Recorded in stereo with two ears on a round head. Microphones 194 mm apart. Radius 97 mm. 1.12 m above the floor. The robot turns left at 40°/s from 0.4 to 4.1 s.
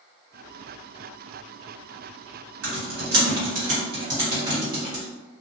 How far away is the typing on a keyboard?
About 1.4 m.